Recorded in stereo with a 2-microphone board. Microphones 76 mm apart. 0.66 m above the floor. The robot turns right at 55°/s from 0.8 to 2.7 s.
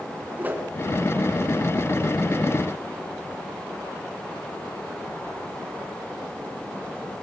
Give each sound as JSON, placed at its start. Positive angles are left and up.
{"t": 0.4, "sound": "a whoosh", "side_deg": -25, "distance_m": 3.0}